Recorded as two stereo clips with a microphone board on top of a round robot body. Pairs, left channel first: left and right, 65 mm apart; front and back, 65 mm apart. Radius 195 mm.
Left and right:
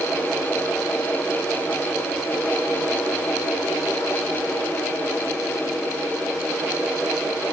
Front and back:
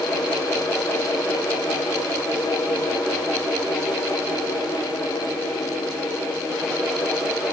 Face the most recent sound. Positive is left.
No sound to turn to.